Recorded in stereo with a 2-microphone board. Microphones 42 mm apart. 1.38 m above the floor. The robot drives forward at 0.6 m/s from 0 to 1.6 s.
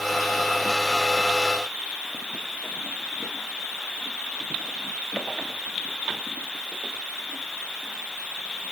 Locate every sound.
Only background noise.